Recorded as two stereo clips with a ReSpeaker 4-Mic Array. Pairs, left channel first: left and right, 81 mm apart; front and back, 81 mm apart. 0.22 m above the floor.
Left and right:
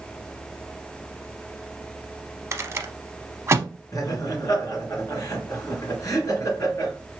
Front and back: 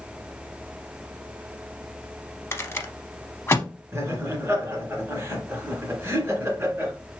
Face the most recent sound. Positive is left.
turn(degrees=125)